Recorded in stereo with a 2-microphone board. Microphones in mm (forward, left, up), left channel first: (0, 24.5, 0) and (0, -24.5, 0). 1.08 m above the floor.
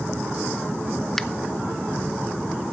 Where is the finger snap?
5° left (ahead or behind), 0.6 m.